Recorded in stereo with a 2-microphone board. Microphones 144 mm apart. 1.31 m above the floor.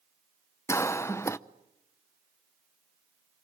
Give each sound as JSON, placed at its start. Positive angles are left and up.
{"t": 0.7, "sound": "a cough", "side_deg": 20, "distance_m": 0.7}